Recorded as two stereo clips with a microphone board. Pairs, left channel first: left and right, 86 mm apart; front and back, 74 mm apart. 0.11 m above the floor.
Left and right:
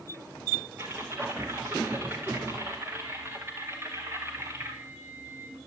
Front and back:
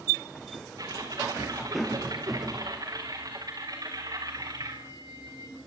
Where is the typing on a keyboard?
150° right, 5.5 m.